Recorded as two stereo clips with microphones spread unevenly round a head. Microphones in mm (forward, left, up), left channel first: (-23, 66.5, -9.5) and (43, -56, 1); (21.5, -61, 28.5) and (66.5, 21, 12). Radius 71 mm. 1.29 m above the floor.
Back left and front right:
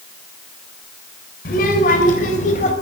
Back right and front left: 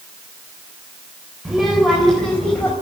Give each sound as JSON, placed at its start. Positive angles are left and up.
{"t": 1.4, "sound": "a child speaking", "azimuth_deg": 150, "distance_m": 3.5}